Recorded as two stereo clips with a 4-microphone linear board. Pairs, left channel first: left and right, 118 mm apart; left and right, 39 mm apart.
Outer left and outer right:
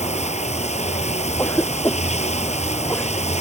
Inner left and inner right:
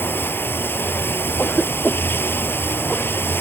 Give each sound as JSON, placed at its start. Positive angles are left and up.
{"t": 0.0, "sound": "running water", "side_deg": 70}
{"t": 1.4, "sound": "a cough", "side_deg": 20}